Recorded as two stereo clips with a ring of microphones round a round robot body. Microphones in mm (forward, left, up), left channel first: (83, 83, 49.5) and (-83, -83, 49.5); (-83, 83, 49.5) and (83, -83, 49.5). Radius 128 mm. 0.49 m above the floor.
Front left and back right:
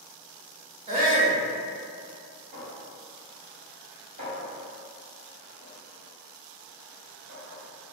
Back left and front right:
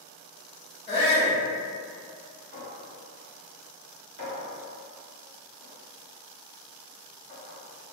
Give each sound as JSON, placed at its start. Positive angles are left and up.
{"t": 0.9, "sound": "a shout", "azimuth_deg": 180, "distance_m": 0.8}
{"t": 2.5, "sound": "a clink", "azimuth_deg": -80, "distance_m": 1.4}